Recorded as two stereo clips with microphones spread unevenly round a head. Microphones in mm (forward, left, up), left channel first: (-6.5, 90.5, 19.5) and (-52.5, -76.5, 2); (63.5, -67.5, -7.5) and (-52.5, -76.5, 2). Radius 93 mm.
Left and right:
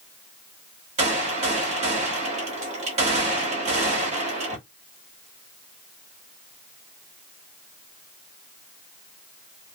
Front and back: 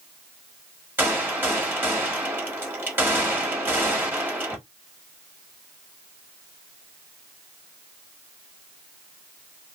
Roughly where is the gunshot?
Behind right.